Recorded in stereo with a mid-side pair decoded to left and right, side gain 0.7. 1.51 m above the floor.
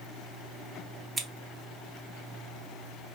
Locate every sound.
1.2 s scissors: 15° right, 1.0 m